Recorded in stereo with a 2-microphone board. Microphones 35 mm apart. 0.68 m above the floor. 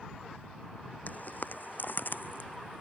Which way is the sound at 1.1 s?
55° left (ahead or behind).